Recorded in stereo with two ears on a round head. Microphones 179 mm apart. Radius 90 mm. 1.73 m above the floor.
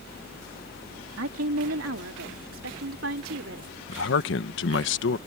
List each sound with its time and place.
1.2 s a woman speaking: 75° right (ahead or behind); by 3.7 s 65° right (ahead or behind)
3.9 s a man speaking: 65° left (ahead or behind)